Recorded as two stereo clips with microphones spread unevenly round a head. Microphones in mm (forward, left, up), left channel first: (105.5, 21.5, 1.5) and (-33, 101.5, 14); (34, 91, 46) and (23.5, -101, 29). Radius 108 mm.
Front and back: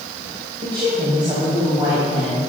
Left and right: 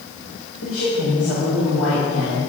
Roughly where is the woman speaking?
Left.